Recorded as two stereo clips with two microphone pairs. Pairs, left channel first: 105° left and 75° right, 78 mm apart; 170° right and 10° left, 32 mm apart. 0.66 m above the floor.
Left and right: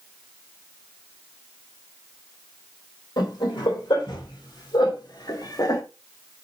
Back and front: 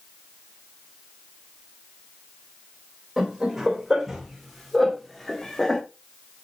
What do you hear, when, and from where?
3.2 s laughter: 90° left, 3 m; by 5.8 s 120° left, 1.3 m